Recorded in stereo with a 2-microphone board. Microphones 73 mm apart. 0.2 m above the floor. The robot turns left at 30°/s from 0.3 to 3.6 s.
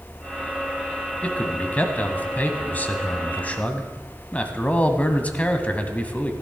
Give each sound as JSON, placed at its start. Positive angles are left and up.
{"t": 1.2, "sound": "a man speaking", "side_deg": 20, "distance_m": 1.3}